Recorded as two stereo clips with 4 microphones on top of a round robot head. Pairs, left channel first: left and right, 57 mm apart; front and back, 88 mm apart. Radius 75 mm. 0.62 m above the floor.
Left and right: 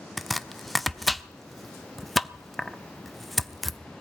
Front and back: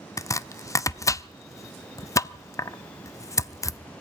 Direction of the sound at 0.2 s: Straight ahead.